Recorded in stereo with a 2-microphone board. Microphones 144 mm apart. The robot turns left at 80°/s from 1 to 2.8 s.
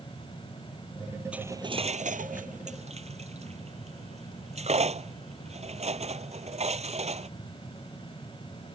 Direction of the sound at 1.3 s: 10° right (ahead or behind).